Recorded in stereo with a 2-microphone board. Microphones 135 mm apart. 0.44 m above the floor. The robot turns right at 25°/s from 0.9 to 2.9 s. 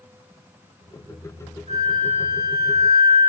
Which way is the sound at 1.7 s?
100° right.